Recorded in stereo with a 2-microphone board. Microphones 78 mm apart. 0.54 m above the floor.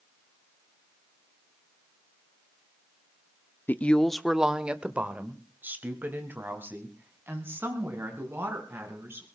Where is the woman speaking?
25° left (ahead or behind), 0.7 m; by 9.2 s 30° right (ahead or behind), 5.5 m.